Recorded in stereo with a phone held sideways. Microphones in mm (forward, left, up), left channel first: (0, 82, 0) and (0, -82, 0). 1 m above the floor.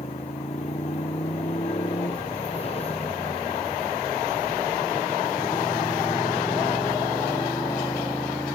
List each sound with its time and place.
0.0 s a motorcycle: 45° left (ahead or behind); by 8.6 s 20° left (ahead or behind)